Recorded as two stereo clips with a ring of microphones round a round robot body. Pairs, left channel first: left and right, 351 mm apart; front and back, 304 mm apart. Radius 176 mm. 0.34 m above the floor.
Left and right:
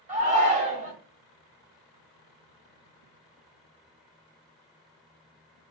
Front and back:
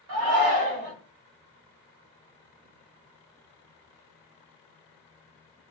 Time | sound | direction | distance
0.1 | a shout | 155° right | 1.7 m